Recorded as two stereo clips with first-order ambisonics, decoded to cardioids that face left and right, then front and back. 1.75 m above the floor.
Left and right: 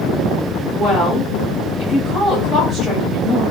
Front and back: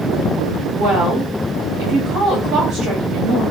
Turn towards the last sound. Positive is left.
turn(degrees=-155)